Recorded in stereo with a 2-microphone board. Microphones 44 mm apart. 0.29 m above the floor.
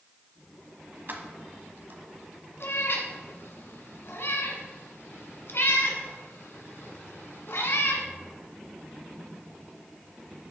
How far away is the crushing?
I don't hear crushing.